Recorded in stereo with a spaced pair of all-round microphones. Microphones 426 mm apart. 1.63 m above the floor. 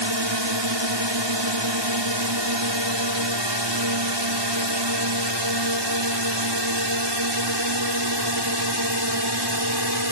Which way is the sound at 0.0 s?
80° right.